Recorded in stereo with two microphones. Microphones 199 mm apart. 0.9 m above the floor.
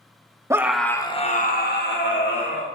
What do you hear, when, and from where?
0.5 s a scream: 15° right (ahead or behind), 1.2 m; by 2.6 s 75° left (ahead or behind), 2.5 m